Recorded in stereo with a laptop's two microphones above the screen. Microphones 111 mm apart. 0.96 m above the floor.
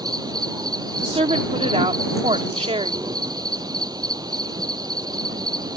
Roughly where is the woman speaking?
Right.